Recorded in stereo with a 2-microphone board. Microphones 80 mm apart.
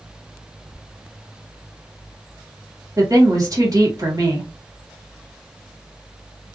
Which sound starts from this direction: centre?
A squeak, at 0.7 s.